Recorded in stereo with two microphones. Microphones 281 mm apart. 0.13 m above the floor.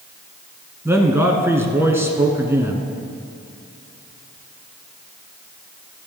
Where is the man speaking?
10° right (ahead or behind), 1.3 m.